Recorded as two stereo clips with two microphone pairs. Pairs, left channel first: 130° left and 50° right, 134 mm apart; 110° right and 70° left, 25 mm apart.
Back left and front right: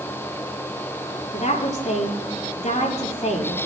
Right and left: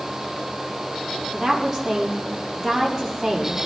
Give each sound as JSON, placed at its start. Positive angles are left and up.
{"t": 1.3, "sound": "a woman speaking", "azimuth_deg": 160, "distance_m": 4.0}